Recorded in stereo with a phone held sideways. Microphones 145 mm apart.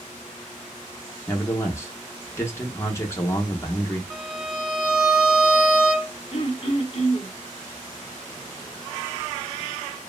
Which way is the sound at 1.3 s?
20° left (ahead or behind).